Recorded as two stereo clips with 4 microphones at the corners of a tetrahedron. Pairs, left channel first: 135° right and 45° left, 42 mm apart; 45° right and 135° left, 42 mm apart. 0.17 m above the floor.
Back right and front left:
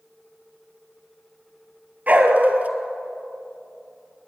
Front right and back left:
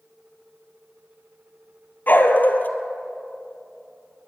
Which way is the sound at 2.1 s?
5° right.